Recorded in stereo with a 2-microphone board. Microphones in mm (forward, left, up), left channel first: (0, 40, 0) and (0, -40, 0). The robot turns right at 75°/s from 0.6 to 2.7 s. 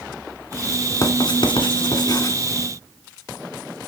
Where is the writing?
40° left (ahead or behind), 1.6 m.